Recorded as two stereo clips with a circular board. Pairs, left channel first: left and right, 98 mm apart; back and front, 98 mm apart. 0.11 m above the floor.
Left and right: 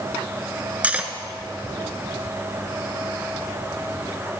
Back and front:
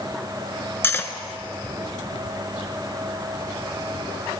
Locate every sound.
0.8 s cutlery clinking: 145° right, 0.8 m